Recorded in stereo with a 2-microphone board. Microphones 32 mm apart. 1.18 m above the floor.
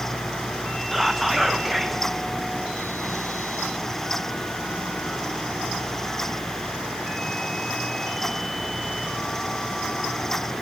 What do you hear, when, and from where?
0.9 s whispering: 5° right (ahead or behind), 0.8 m